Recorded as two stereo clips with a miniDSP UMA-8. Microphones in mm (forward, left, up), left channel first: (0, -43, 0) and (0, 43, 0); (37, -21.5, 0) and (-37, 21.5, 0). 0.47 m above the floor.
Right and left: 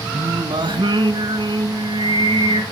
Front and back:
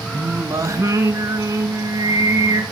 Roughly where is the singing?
Left.